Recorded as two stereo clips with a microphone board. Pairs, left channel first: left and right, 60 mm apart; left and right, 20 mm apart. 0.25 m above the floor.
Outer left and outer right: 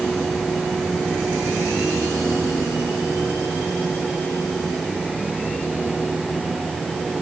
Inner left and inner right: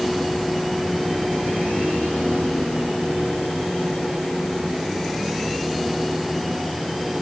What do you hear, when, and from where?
Only background noise.